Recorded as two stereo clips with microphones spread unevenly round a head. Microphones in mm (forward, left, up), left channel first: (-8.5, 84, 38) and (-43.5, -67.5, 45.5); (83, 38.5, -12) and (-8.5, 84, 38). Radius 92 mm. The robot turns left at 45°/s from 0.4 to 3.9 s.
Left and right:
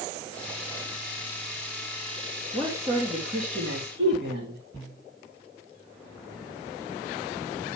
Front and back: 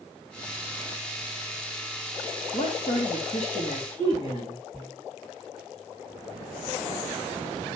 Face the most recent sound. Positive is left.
turn(degrees=-75)